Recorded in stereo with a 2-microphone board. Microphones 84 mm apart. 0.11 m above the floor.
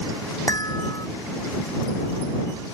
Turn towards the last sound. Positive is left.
turn(degrees=40)  # may be behind; listen again after turning